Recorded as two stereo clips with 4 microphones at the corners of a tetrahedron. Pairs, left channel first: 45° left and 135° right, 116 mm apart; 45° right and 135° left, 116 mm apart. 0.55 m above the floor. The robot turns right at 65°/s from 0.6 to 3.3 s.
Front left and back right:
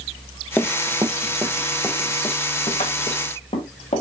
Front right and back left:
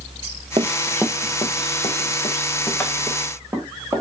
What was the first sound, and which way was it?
Running footsteps, 115° left.